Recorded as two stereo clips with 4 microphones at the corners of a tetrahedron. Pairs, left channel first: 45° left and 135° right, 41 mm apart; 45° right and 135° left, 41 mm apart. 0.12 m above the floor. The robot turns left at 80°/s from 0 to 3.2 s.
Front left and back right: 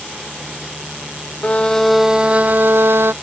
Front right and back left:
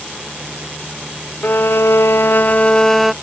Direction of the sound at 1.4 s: 5° right.